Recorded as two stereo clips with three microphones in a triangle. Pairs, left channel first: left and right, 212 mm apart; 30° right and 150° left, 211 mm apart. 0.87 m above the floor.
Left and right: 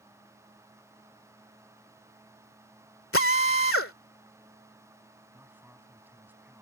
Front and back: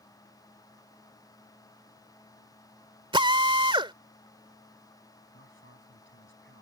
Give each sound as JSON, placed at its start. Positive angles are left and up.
{"t": 3.1, "sound": "a drill", "azimuth_deg": 85}
{"t": 5.3, "sound": "a man speaking", "azimuth_deg": -10}